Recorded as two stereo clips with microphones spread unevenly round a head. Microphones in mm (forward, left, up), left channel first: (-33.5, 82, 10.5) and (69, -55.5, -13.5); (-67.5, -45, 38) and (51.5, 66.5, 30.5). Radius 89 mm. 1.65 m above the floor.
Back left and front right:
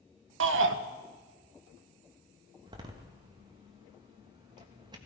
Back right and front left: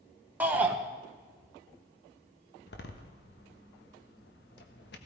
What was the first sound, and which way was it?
A shout, 40° right.